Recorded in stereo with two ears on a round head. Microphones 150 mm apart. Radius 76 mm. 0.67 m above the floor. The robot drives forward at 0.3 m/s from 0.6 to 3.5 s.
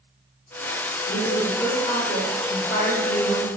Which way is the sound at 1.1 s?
50° left (ahead or behind).